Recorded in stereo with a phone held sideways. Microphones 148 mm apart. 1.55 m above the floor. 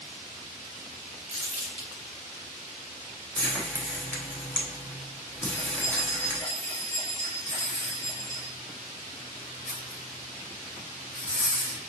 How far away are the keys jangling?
About 2.5 m.